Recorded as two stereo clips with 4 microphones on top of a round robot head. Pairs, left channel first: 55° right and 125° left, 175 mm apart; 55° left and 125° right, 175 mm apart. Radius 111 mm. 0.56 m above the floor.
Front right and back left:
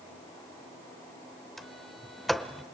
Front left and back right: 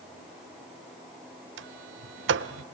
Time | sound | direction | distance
1.6 | a sliding door | 145° right | 0.6 m